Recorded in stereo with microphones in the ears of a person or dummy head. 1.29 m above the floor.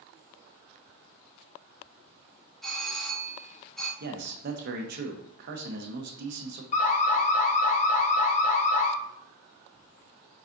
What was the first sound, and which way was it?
A doorbell, centre (ahead or behind).